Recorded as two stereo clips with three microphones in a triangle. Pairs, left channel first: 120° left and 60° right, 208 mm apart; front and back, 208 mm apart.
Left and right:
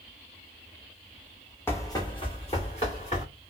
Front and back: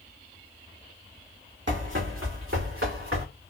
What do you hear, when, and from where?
1.7 s running footsteps: 160° right, 1.2 m; by 3.2 s 175° left, 2.5 m